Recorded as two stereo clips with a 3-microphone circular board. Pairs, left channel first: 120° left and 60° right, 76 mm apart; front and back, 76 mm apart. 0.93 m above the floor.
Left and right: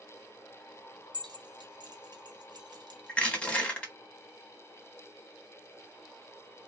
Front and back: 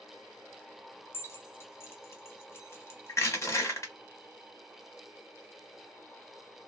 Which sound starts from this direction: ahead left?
Crushing, at 3.1 s.